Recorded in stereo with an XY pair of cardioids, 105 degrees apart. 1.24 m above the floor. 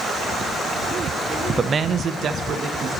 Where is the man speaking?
30° right, 0.6 m; by 2.9 s 65° right, 1.7 m.